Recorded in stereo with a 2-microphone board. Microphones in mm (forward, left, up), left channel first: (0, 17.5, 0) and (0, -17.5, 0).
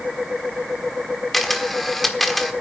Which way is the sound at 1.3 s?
5° left (ahead or behind).